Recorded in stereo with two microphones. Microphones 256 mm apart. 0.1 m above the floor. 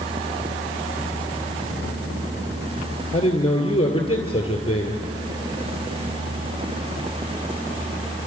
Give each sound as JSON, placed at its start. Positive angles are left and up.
{"t": 3.1, "sound": "a man speaking", "side_deg": 20, "distance_m": 1.9}